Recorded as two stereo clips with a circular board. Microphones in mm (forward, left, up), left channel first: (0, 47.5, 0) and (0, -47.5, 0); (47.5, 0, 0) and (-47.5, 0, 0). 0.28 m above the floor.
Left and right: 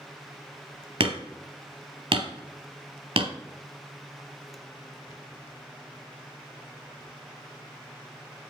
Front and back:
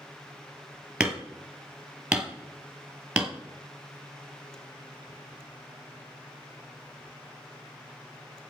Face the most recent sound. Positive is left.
turn(degrees=-100)